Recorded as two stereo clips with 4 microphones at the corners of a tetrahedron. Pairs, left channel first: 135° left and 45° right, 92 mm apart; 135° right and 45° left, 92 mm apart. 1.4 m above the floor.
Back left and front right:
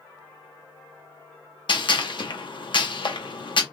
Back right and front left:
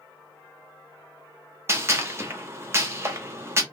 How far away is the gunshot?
About 1.0 m.